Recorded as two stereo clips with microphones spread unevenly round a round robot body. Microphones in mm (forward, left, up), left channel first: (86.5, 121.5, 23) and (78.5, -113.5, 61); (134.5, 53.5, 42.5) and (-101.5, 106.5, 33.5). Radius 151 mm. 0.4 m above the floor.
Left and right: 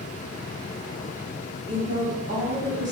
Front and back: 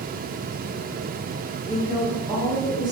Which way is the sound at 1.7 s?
140° right.